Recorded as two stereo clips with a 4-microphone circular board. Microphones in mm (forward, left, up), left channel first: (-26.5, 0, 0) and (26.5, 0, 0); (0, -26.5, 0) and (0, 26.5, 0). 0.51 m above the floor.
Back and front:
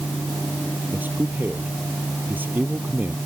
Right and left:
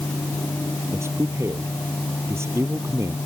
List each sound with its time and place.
0.9 s a man speaking: 55° left